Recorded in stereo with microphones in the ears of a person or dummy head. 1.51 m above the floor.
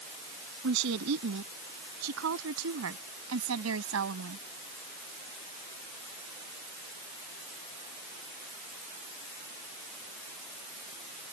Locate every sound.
0.6 s a woman speaking: 80° right; by 4.5 s 85° right